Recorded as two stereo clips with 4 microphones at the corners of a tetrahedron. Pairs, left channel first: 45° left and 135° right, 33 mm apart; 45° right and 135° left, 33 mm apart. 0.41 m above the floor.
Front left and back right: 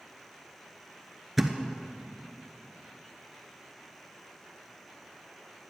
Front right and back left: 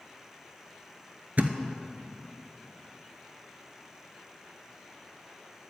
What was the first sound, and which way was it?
A thud, 140° left.